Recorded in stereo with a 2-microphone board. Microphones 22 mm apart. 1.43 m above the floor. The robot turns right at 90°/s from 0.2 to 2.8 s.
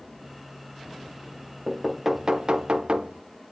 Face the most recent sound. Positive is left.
turn(degrees=-85)